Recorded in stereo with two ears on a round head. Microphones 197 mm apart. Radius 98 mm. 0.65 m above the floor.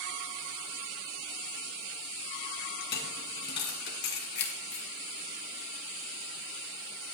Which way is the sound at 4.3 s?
50° left (ahead or behind).